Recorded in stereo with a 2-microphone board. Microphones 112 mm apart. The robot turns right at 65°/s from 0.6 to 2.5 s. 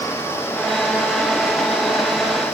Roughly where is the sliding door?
No sliding door in this recording.